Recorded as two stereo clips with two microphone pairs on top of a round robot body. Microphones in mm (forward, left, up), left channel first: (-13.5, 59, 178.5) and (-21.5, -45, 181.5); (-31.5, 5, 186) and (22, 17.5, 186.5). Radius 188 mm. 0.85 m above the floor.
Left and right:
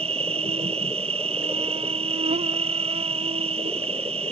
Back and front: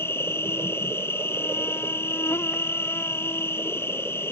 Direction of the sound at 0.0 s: 120° right.